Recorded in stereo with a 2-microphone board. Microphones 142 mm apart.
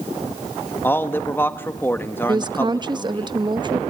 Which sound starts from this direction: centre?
A man speaking, at 0.8 s.